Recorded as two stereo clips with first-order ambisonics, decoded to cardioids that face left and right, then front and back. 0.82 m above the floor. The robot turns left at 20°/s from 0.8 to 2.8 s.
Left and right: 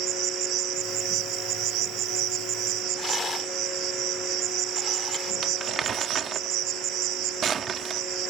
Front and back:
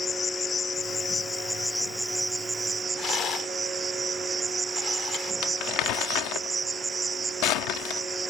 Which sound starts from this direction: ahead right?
Crumpling, at 5.4 s.